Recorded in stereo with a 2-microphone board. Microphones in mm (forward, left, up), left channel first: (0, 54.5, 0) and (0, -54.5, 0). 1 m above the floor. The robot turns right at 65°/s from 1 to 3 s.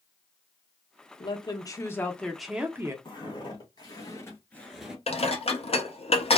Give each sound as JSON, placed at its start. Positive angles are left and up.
{"t": 1.2, "sound": "a woman speaking", "azimuth_deg": 100, "distance_m": 0.7}
{"t": 3.0, "sound": "footsteps", "side_deg": 45, "distance_m": 2.0}
{"t": 5.1, "sound": "dishes clattering", "side_deg": 65, "distance_m": 0.7}